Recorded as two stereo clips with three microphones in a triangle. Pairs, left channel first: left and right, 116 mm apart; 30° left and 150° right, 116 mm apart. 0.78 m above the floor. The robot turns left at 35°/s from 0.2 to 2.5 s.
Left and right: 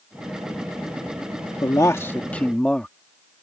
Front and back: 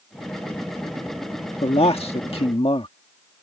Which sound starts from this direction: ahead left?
A man speaking, at 1.6 s.